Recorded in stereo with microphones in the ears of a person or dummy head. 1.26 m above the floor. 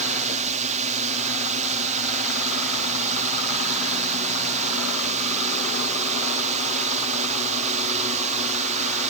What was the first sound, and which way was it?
A drone, 35° right (ahead or behind).